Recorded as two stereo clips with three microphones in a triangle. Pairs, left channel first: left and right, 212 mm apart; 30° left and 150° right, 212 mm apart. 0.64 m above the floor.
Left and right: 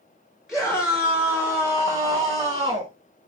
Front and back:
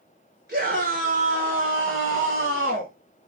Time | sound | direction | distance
0.5 | a scream | straight behind | 3 m